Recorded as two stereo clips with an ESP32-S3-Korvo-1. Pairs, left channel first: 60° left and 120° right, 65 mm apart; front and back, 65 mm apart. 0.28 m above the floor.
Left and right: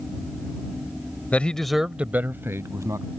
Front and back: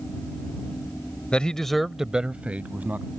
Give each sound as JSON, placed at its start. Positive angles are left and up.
{"t": 1.3, "sound": "a man speaking", "azimuth_deg": 45}